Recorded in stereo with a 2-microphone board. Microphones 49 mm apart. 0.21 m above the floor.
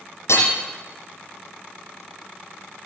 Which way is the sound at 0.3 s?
80° left.